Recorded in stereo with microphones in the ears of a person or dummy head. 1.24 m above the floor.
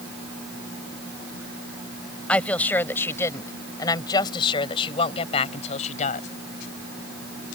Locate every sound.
2.3 s a woman speaking: 5° left (ahead or behind); by 6.3 s 40° left (ahead or behind)